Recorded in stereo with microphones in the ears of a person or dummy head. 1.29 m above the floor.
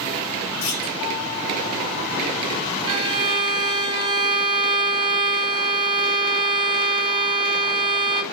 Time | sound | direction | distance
0.6 | a clunk | 70° left (ahead or behind) | 2.5 m
2.9 | a violin | 25° right (ahead or behind) | 0.5 m